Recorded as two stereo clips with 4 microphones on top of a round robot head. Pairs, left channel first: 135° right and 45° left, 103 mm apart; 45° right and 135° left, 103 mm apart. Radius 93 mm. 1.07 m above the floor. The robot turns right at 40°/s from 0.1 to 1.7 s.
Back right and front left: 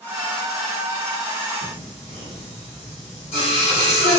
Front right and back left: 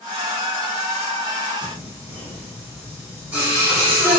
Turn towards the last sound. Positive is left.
turn(degrees=-150)